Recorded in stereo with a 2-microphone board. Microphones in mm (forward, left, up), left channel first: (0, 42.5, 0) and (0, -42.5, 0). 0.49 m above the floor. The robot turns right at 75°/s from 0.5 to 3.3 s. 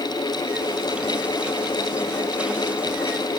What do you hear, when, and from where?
Only background noise.